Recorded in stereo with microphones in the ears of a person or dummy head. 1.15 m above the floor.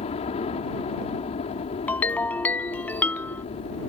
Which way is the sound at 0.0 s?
35° left (ahead or behind).